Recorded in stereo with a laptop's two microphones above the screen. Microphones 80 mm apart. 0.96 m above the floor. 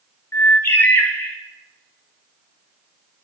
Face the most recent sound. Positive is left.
turn(degrees=30)  # may be behind; listen again after turning